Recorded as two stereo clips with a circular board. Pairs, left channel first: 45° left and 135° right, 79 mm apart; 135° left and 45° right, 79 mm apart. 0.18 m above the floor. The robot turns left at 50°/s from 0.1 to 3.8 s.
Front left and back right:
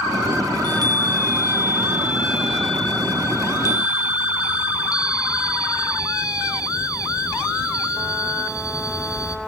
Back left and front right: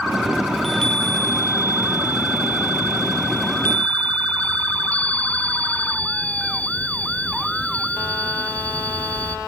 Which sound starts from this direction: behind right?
A chime, at 0.5 s.